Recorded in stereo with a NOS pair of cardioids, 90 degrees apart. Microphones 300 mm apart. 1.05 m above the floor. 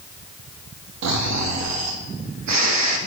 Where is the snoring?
60° right, 1.2 m.